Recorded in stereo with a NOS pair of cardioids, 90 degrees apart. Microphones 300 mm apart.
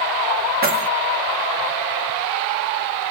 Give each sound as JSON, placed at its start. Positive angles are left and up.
{"t": 0.6, "sound": "keys jangling", "azimuth_deg": -35, "distance_m": 1.3}